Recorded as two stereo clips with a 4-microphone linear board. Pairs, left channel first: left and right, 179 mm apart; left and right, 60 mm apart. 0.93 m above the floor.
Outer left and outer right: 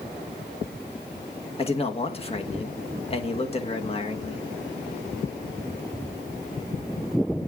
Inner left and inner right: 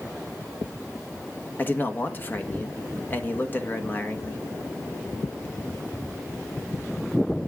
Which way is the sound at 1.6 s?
30° left (ahead or behind).